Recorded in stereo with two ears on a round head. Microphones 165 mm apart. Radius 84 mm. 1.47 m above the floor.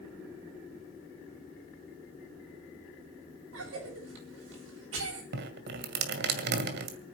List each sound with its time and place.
3.5 s a cough: 70° right (ahead or behind), 10 m
5.3 s dripping: 60° right (ahead or behind), 2 m